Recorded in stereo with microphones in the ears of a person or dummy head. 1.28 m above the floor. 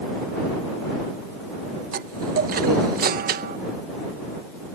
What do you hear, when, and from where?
1.9 s a chime: 45° right (ahead or behind)